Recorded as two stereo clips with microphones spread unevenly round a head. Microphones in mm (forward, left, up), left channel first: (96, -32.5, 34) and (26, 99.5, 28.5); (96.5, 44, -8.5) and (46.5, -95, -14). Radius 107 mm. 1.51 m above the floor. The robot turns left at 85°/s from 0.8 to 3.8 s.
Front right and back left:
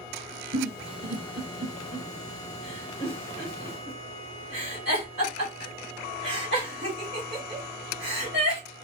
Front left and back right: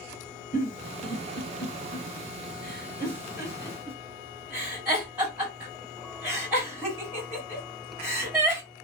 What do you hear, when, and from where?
0.5 s a giggle: 65° left, 2.5 m; by 8.6 s 170° left, 2.5 m